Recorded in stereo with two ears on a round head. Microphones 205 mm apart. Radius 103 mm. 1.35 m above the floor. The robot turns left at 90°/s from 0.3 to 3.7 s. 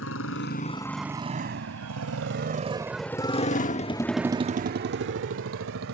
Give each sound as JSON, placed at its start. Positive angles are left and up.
{"t": 0.0, "sound": "a motorcycle", "side_deg": 60}